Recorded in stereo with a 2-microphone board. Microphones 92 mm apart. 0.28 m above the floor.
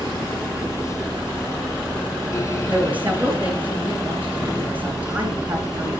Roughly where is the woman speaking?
Centre.